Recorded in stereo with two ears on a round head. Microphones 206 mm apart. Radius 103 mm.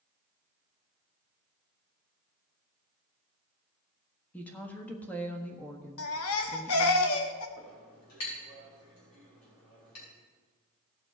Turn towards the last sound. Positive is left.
turn(degrees=80)